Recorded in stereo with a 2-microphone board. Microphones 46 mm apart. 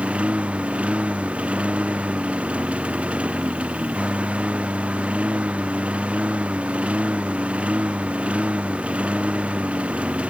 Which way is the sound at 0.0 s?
25° right (ahead or behind).